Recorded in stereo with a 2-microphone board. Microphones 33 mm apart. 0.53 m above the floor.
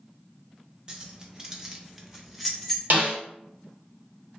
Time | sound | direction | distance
0.9 | keys jangling | 25° right (ahead or behind) | 0.7 m
2.9 | a snare drum | 60° right (ahead or behind) | 1.2 m